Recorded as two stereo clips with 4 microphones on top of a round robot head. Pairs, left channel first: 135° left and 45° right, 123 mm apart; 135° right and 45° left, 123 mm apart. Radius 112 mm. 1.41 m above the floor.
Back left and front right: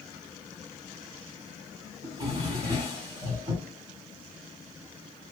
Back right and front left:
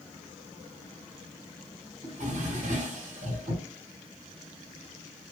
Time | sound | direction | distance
2.0 | a drawer | 10° left | 2 m